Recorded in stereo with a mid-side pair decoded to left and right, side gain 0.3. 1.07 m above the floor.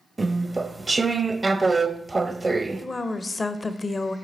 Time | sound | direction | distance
0.2 | chewing | 30° right | 0.5 m
2.8 | a woman speaking | 40° left | 0.7 m